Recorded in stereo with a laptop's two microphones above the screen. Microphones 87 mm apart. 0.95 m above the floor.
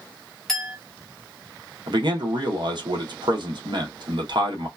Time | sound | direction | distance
0.5 | a clink | 5° left (ahead or behind) | 1.1 m
1.9 | a man speaking | 60° right (ahead or behind) | 0.9 m